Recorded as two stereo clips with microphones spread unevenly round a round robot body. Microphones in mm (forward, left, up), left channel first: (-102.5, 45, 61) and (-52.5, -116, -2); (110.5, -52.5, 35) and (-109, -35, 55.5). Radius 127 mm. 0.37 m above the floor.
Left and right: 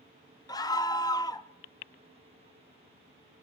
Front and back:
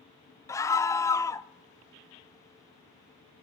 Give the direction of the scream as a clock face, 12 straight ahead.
11 o'clock.